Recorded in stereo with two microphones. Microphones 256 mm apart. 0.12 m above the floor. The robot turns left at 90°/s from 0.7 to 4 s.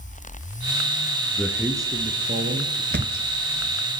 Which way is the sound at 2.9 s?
45° right (ahead or behind).